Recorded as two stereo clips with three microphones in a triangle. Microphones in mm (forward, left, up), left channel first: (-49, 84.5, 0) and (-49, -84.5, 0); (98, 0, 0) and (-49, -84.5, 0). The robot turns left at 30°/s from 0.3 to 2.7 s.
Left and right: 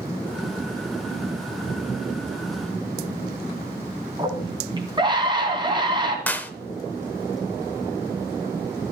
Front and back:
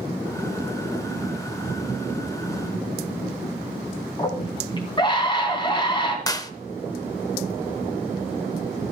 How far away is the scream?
About 2.5 m.